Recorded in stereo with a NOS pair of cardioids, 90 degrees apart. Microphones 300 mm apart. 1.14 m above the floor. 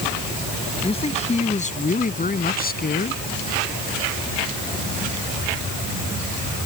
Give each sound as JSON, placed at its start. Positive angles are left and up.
{"t": 0.8, "sound": "a man speaking", "azimuth_deg": 20}